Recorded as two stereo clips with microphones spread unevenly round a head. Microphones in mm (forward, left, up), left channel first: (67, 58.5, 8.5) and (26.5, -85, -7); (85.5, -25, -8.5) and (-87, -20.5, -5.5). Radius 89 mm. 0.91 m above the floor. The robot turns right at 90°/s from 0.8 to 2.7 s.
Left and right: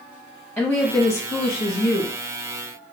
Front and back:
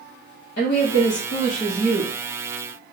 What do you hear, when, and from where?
0.6 s a woman speaking: 25° right, 0.8 m; by 2.1 s 100° left, 0.8 m